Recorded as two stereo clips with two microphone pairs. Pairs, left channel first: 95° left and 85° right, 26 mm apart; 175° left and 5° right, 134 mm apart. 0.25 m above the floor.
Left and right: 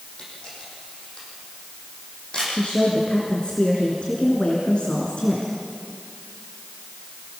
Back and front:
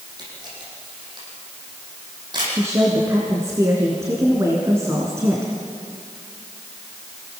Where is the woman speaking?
60° left, 3 m.